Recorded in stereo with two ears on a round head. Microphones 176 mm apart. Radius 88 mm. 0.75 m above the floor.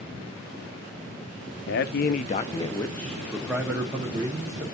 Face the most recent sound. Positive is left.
turn(degrees=-20)  # may be behind; listen again after turning